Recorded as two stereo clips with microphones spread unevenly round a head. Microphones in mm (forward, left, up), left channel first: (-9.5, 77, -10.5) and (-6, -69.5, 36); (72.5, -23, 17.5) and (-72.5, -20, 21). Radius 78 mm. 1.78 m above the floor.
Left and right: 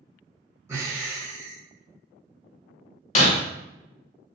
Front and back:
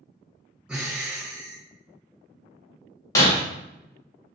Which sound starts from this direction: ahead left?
Breaking glass, at 3.1 s.